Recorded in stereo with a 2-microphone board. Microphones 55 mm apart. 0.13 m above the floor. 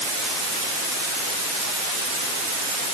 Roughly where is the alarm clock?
No alarm clock in this recording.